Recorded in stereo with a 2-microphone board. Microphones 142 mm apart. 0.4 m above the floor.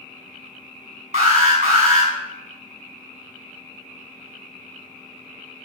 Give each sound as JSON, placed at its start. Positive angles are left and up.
{"t": 1.1, "sound": "an alarm", "side_deg": -60, "distance_m": 5.0}